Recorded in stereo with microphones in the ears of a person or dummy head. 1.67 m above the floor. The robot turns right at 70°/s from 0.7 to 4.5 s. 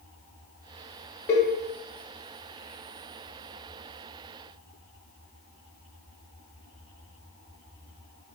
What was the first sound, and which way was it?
A cowbell, 10° left (ahead or behind).